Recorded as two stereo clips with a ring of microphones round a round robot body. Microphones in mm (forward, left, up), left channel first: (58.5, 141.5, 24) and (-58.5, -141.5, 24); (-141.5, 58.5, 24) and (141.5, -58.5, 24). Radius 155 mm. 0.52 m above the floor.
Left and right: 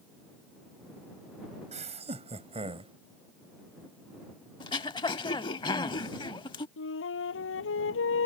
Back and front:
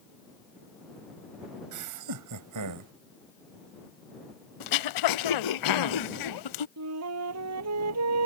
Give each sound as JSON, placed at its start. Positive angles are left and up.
{"t": 1.7, "sound": "laughter", "azimuth_deg": -45}
{"t": 4.6, "sound": "throat clearing", "azimuth_deg": 140}
{"t": 6.8, "sound": "a flute", "azimuth_deg": 15}